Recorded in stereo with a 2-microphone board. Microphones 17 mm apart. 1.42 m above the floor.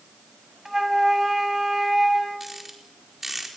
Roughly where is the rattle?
Centre.